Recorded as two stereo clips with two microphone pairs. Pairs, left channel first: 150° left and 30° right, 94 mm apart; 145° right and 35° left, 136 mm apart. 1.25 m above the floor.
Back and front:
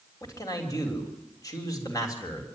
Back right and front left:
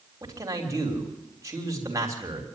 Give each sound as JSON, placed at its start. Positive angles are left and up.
{"t": 0.2, "sound": "a man speaking", "azimuth_deg": 100, "distance_m": 3.5}